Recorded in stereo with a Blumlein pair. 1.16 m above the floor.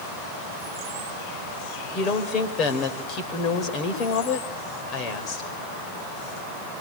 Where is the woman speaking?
30° left, 4.5 m.